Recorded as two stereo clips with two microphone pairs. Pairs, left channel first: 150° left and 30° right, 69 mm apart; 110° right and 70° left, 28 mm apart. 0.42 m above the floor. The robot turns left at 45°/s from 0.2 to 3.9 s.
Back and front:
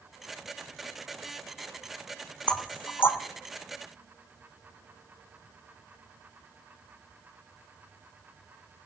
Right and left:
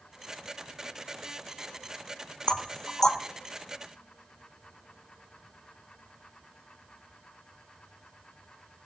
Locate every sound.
2.5 s knocking: 150° right, 0.6 m; by 3.2 s straight behind, 0.6 m